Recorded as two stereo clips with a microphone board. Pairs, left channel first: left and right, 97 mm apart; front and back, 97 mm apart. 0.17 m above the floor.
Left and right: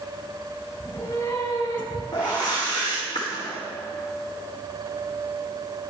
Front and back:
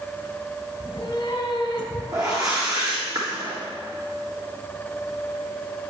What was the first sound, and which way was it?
A cat meowing, 45° left.